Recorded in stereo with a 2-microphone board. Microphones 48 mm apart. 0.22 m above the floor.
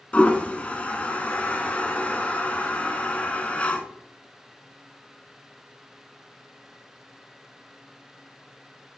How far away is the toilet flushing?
About 0.5 m.